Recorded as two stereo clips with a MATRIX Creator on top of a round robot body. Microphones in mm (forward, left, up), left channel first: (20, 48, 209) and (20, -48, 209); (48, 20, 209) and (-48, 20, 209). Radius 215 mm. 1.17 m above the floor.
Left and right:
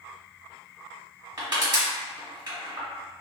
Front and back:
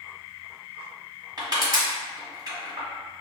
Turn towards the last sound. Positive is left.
turn(degrees=-135)